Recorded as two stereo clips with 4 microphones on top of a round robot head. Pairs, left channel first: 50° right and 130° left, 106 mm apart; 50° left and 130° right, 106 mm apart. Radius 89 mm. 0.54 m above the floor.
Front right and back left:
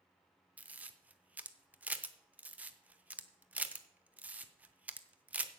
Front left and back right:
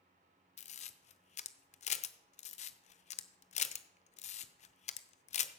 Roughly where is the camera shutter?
Ahead left.